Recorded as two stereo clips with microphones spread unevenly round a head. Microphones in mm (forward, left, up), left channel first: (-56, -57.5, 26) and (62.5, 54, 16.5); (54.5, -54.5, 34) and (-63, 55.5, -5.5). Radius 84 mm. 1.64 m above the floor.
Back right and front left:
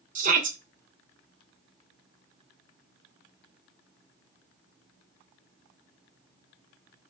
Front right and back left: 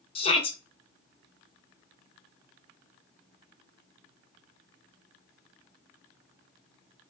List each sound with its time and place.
0.1 s a shout: straight ahead, 0.8 m